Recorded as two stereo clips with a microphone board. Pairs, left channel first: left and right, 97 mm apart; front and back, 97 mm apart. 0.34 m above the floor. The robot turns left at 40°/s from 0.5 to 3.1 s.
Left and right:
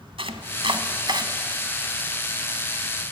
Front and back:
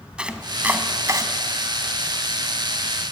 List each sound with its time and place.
0.2 s chopping: 100° right, 1.6 m; by 1.3 s 130° right, 1.6 m